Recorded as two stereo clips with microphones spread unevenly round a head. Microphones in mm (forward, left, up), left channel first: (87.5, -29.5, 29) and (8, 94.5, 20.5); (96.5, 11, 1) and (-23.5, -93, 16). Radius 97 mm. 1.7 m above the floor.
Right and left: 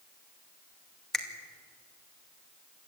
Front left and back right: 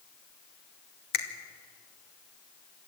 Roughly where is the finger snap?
Ahead left.